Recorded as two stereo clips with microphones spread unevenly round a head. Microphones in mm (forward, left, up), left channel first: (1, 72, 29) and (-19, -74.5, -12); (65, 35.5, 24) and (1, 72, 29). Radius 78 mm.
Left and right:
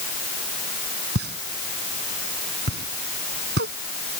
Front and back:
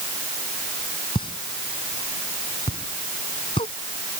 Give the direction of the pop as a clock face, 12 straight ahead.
2 o'clock.